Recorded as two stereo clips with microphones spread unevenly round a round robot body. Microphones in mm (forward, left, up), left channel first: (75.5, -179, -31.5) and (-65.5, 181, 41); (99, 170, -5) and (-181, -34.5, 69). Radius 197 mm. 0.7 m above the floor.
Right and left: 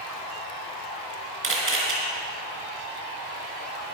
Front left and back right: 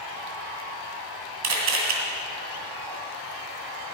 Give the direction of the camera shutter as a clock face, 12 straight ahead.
6 o'clock.